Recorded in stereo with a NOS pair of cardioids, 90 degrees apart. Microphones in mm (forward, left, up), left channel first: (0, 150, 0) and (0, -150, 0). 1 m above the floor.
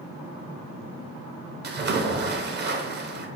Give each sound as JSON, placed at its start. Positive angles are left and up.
{"t": 1.6, "sound": "a splash", "azimuth_deg": -35, "distance_m": 0.6}